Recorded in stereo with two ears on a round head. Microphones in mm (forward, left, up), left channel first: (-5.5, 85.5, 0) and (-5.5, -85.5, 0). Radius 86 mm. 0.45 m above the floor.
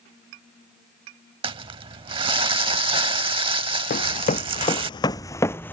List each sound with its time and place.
1.4 s crumpling: 25° right (ahead or behind)
3.9 s running footsteps: 45° left (ahead or behind); by 5.7 s 10° left (ahead or behind)